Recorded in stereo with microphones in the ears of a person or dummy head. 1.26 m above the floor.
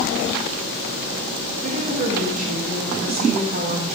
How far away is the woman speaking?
About 1.5 m.